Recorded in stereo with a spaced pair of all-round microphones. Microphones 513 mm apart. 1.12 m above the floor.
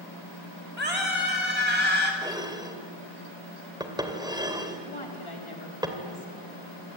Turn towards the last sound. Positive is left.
turn(degrees=65)  # may be behind; listen again after turning